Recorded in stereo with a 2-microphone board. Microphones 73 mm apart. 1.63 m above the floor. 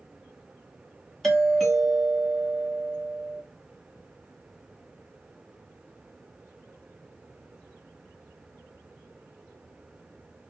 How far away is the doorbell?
About 1.5 m.